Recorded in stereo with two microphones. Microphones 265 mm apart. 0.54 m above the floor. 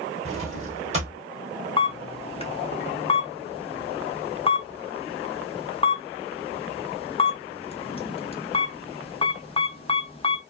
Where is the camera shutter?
25° left (ahead or behind), 0.6 m.